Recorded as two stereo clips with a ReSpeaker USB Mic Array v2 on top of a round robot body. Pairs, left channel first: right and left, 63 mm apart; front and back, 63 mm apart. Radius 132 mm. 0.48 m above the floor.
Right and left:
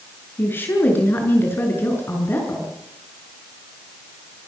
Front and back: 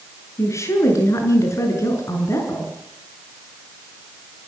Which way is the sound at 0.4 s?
35° right.